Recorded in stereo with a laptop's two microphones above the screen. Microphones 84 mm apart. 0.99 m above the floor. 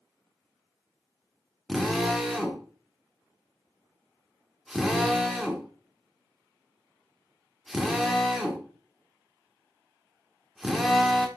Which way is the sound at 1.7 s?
Centre (ahead or behind).